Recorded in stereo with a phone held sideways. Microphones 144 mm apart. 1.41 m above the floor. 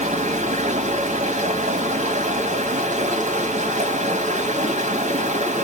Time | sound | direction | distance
0.0 | running water | 60° right (ahead or behind) | 1.3 m